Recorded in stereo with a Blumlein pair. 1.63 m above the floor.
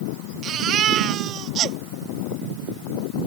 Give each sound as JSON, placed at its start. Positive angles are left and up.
{"t": 0.4, "sound": "a baby crying", "azimuth_deg": -30}